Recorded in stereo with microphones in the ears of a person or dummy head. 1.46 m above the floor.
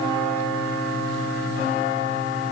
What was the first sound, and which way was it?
Only background noise.